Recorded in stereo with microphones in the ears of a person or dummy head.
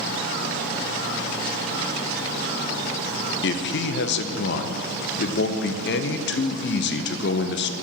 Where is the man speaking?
50° left (ahead or behind), 0.5 m.